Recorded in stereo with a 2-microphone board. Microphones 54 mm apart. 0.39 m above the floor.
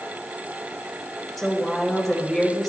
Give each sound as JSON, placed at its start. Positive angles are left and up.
{"t": 1.4, "sound": "a woman speaking", "side_deg": 5, "distance_m": 1.7}